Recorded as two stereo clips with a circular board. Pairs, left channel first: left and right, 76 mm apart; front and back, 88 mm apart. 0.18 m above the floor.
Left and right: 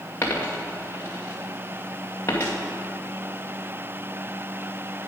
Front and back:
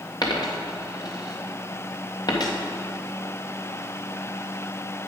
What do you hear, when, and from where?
0.2 s a dropped coin: 35° left, 1.9 m